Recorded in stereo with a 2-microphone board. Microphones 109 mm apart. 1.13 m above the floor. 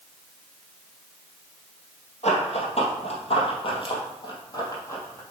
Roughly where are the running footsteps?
Left.